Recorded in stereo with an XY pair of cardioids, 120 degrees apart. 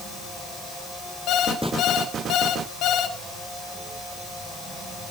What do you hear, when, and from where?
1.3 s an alarm clock: 70° left, 2.0 m